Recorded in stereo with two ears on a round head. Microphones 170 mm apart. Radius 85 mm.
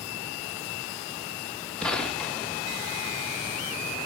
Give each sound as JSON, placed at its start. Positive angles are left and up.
{"t": 1.8, "sound": "a gunshot", "side_deg": 5, "distance_m": 1.2}